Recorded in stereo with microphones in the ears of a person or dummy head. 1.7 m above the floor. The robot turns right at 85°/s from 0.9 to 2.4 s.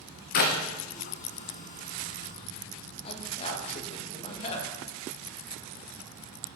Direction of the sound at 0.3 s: 50° left (ahead or behind).